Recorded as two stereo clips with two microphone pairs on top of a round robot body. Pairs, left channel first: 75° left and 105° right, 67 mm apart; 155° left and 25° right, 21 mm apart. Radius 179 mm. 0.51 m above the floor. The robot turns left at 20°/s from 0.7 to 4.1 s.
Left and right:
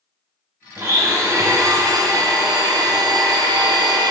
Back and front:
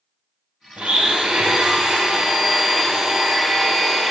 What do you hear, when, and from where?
0.8 s a blender: 50° right, 0.9 m; by 4.1 s 115° right, 0.9 m